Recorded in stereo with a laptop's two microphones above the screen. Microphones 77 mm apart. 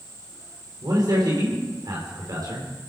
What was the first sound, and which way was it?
A man speaking, 60° right (ahead or behind).